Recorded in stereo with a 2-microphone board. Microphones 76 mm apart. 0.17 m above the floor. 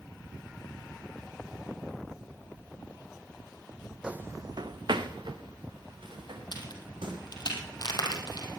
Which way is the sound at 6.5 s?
60° left (ahead or behind).